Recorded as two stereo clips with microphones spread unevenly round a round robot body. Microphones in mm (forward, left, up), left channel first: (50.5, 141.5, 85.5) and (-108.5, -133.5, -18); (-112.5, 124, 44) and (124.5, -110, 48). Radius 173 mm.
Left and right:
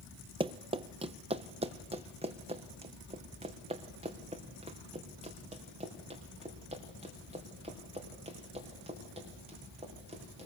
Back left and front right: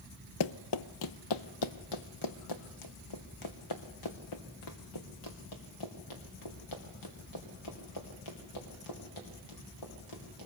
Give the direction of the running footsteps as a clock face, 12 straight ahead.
7 o'clock.